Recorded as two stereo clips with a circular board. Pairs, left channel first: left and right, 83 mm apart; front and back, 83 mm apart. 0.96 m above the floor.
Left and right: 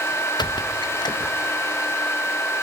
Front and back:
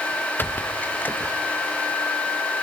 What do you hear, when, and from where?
0.4 s a squeak: 65° left, 0.7 m